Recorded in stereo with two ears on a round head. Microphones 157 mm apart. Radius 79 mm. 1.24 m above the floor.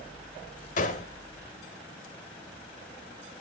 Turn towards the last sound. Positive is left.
turn(degrees=45)  # may be behind; listen again after turning